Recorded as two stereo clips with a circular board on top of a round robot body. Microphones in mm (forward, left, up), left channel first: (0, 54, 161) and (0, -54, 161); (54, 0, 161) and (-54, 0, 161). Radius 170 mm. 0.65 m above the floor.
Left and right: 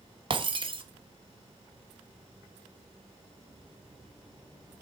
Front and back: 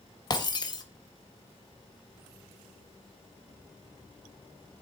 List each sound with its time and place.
0.3 s breaking glass: 50° right, 1.3 m